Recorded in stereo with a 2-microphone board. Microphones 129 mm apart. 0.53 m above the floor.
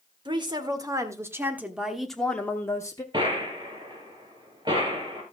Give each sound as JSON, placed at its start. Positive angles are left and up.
{"t": 0.2, "sound": "a woman speaking", "side_deg": -35, "distance_m": 1.7}
{"t": 3.1, "sound": "a gunshot", "side_deg": -35, "distance_m": 4.0}